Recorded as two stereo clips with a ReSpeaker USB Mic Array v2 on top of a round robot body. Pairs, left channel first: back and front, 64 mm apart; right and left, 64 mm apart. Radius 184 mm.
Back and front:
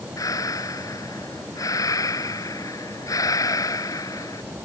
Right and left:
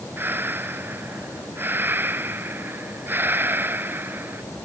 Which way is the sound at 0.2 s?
150° left.